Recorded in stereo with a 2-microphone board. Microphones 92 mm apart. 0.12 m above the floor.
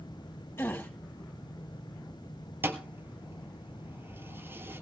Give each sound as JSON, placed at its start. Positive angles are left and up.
{"t": 0.6, "sound": "a gasp", "side_deg": 20, "distance_m": 3.0}
{"t": 2.6, "sound": "a thud", "side_deg": -25, "distance_m": 1.2}